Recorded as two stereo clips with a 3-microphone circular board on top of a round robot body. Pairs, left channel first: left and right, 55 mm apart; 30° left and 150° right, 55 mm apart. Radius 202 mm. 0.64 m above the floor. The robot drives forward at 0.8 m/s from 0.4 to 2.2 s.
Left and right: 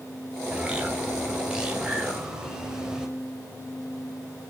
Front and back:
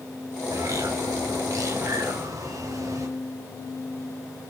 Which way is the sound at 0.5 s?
160° right.